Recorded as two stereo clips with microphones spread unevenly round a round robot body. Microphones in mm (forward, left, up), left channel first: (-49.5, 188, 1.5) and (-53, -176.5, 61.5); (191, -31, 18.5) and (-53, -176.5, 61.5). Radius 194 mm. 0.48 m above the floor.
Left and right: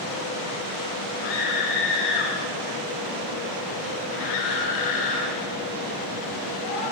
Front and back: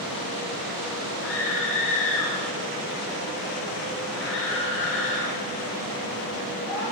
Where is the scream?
80° left, 4.5 m; by 6.8 s 95° left, 8 m.